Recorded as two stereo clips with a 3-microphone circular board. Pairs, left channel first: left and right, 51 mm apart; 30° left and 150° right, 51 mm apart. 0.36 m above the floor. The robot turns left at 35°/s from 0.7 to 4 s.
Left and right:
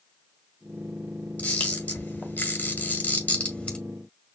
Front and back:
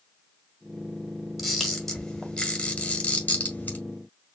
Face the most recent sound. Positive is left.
turn(degrees=35)